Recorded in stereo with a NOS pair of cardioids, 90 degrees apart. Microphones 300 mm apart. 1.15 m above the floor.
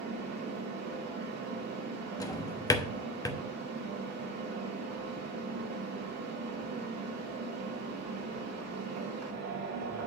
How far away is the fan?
About 2.5 m.